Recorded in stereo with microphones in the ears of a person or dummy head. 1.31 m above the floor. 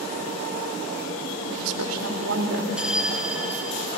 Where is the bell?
5° left (ahead or behind), 1.1 m.